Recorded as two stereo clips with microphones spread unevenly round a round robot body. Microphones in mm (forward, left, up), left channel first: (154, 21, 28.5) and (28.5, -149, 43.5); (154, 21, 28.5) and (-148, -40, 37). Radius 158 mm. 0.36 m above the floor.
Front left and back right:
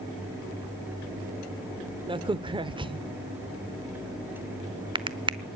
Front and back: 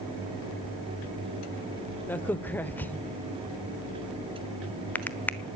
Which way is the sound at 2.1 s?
65° right.